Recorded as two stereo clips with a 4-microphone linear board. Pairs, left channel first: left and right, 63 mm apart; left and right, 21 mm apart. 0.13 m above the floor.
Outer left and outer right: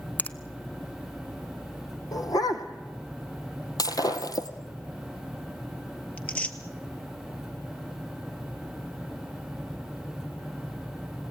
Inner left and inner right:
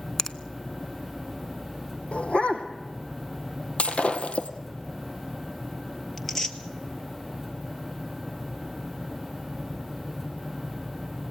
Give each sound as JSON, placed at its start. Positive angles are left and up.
{"t": 0.2, "sound": "a finger snap", "side_deg": 25, "distance_m": 0.8}
{"t": 2.1, "sound": "a dog barking", "side_deg": 70, "distance_m": 2.0}
{"t": 3.8, "sound": "breaking glass", "side_deg": 75, "distance_m": 1.7}
{"t": 6.2, "sound": "tearing paper", "side_deg": 20, "distance_m": 1.6}